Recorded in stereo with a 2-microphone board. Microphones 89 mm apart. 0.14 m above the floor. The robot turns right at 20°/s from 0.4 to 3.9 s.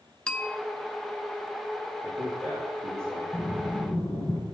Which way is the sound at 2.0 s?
10° right (ahead or behind).